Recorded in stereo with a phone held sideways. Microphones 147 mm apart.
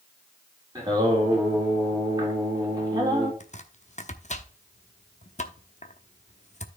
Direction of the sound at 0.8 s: 25° right (ahead or behind).